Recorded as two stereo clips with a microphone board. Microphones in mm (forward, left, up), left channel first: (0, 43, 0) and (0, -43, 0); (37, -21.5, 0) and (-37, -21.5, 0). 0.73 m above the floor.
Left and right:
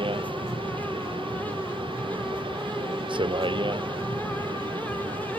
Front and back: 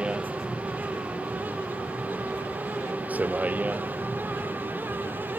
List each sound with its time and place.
0.0 s a vehicle: 105° right; by 5.4 s 115° right